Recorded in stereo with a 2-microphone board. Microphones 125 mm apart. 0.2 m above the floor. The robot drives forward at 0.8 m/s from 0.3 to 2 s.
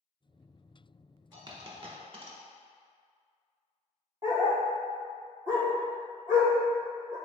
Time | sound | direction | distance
1.3 | a dropped coin | 35° right (ahead or behind) | 1.0 m
4.2 | a dog barking | 25° right (ahead or behind) | 1.7 m